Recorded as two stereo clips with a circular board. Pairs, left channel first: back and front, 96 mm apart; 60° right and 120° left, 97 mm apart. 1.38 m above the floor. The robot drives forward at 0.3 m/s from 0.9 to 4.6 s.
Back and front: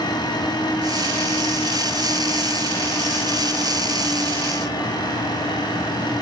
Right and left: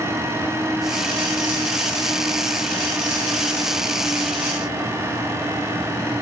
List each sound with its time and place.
Only background noise.